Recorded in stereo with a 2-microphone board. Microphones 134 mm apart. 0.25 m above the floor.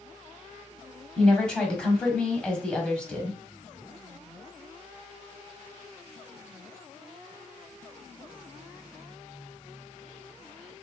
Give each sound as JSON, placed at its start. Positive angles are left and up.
{"t": 1.2, "sound": "a woman speaking", "side_deg": 5, "distance_m": 1.2}